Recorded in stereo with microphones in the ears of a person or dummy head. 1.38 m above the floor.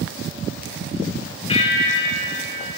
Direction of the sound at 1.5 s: 35° left (ahead or behind).